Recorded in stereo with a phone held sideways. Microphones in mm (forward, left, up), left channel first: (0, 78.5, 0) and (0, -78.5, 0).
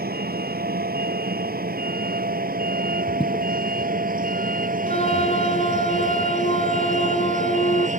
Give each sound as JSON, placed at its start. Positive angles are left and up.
{"t": 0.0, "sound": "a vehicle", "side_deg": -75}
{"t": 3.2, "sound": "footsteps", "side_deg": 30}
{"t": 4.9, "sound": "a flute", "side_deg": 40}